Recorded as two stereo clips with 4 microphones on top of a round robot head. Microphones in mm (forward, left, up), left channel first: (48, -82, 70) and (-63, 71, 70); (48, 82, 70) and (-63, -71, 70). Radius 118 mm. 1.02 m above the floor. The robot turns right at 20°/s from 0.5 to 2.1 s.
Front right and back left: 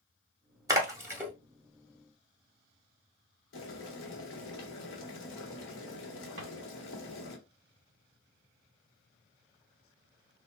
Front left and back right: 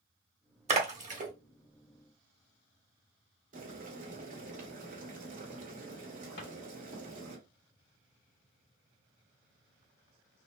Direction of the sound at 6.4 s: 90° left.